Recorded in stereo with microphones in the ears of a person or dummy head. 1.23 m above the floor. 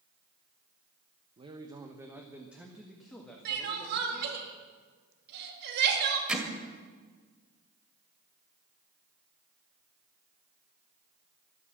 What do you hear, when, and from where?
1.4 s a man speaking: 30° right (ahead or behind), 0.9 m; by 4.5 s 10° left (ahead or behind), 2.5 m
3.5 s crying: 60° right (ahead or behind), 2.5 m
6.3 s hammering: 5° right (ahead or behind), 2 m